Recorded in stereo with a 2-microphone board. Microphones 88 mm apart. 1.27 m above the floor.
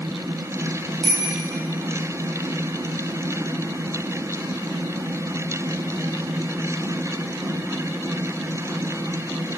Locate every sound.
1.0 s a bicycle bell: centre (ahead or behind), 5 m